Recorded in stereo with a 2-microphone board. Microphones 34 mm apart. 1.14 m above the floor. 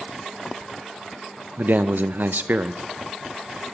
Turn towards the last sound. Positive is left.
turn(degrees=-75)  # may be behind; listen again after turning